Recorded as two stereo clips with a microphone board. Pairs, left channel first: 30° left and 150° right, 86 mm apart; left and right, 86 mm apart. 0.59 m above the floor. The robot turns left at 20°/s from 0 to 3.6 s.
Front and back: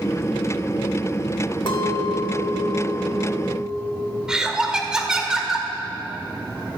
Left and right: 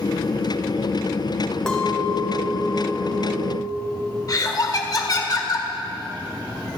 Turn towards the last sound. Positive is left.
turn(degrees=130)